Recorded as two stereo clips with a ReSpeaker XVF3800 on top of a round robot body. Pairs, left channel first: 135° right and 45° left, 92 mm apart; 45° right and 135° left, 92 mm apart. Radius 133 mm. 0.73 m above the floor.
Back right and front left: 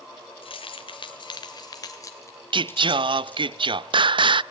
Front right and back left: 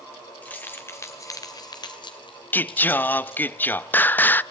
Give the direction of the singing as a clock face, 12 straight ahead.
11 o'clock.